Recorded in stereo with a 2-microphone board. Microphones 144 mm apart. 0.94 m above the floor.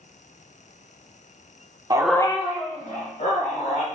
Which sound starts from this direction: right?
A dog barking, at 1.9 s.